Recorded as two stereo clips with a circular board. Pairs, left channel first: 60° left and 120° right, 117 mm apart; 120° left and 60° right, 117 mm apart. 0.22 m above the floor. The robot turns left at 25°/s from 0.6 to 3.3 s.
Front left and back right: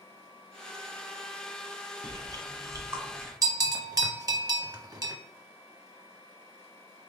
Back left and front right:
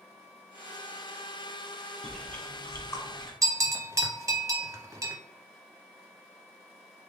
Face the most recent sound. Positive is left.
turn(degrees=-100)